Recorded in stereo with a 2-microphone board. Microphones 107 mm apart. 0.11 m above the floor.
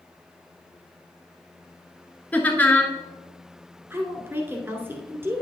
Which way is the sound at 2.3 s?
15° left (ahead or behind).